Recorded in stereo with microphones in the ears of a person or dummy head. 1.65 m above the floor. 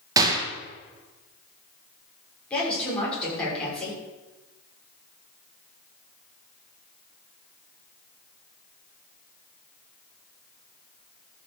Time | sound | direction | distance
0.2 | a gunshot | 20° right (ahead or behind) | 2 m
2.5 | a woman speaking | 5° left (ahead or behind) | 6.5 m